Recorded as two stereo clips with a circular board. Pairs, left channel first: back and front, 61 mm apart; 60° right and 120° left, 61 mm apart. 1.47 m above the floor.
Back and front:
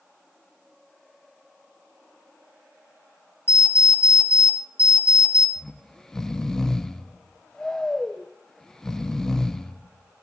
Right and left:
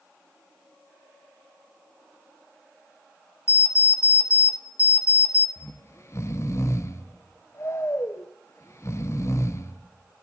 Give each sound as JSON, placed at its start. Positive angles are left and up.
{"t": 3.5, "sound": "an alarm clock", "azimuth_deg": -55, "distance_m": 1.2}
{"t": 5.6, "sound": "snoring", "azimuth_deg": -100, "distance_m": 0.6}